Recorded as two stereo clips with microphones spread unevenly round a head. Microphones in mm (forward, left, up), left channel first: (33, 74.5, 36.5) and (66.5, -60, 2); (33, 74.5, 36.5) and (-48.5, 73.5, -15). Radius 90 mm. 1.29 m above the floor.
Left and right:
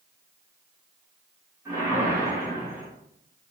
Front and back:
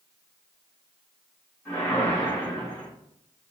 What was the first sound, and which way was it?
A whoosh, straight ahead.